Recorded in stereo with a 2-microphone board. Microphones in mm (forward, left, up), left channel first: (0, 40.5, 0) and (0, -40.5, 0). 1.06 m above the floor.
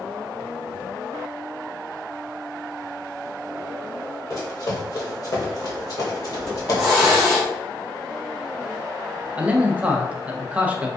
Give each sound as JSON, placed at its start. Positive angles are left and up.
{"t": 4.3, "sound": "running footsteps", "side_deg": 40, "distance_m": 1.7}
{"t": 6.4, "sound": "a hiss", "side_deg": -5, "distance_m": 1.9}
{"t": 9.3, "sound": "a man speaking", "side_deg": -15, "distance_m": 0.6}